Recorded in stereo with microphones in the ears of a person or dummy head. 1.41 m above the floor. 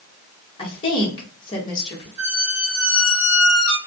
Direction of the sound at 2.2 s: 40° left (ahead or behind).